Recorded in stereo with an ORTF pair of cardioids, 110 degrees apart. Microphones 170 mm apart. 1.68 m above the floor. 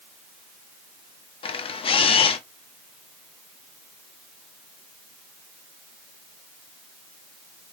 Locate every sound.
1.4 s a camera shutter: 30° left, 0.8 m